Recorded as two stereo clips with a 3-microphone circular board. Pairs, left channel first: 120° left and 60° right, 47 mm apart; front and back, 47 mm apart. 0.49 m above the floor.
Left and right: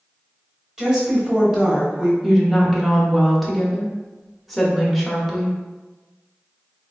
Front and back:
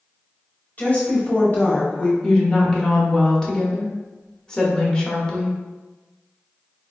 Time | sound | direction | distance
0.8 | a woman speaking | 5° left | 1.1 m
2.2 | a woman speaking | 30° left | 0.7 m